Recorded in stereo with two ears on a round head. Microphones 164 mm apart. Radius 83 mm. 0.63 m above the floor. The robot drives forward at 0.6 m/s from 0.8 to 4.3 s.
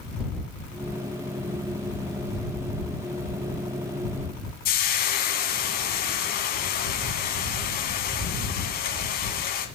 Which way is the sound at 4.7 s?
50° left (ahead or behind).